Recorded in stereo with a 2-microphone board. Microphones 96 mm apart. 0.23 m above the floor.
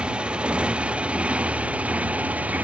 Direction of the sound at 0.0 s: 10° right (ahead or behind).